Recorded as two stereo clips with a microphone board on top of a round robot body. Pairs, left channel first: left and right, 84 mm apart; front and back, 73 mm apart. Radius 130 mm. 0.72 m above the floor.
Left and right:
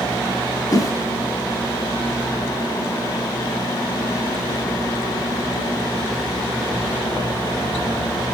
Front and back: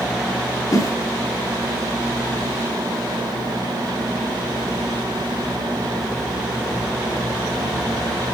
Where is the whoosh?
45° left, 3 m.